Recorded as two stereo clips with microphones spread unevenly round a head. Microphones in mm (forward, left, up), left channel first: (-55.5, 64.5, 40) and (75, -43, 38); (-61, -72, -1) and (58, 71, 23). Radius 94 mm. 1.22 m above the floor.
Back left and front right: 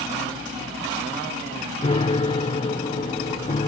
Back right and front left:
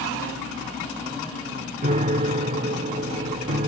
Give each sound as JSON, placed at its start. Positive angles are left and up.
{"t": 1.8, "sound": "a piano", "azimuth_deg": 90}